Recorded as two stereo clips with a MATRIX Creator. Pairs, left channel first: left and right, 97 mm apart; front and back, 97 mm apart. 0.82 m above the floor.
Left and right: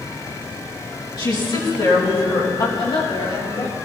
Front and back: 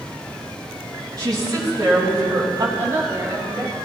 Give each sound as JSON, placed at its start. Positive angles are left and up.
{"t": 1.2, "sound": "a woman speaking", "azimuth_deg": 130, "distance_m": 6.0}
{"t": 2.8, "sound": "a woman speaking", "azimuth_deg": 120, "distance_m": 5.5}